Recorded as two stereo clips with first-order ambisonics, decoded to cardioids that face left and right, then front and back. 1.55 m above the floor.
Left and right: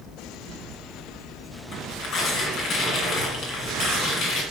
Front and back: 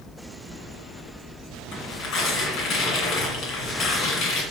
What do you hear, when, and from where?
1.7 s tearing paper: 35° left, 2 m